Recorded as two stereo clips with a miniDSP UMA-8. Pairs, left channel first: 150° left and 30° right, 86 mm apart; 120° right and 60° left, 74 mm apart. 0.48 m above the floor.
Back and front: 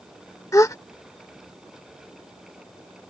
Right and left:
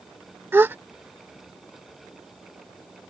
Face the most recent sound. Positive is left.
turn(degrees=115)